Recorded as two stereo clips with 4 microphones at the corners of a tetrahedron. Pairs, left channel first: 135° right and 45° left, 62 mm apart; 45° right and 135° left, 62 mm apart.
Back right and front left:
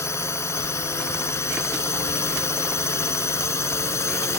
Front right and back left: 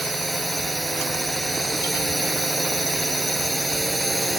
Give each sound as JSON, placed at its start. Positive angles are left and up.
{"t": 0.0, "sound": "a drone", "azimuth_deg": -135}